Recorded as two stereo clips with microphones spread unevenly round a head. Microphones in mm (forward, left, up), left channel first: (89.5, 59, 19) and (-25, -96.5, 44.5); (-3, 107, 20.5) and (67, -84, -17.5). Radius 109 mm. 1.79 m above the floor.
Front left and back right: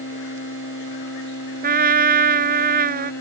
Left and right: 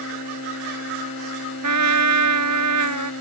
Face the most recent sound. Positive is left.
turn(degrees=-80)